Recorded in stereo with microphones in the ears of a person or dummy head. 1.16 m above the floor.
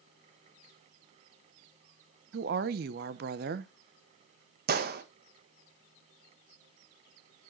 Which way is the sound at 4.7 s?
55° right (ahead or behind).